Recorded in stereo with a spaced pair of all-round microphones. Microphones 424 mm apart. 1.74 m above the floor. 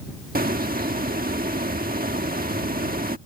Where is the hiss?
20° right (ahead or behind).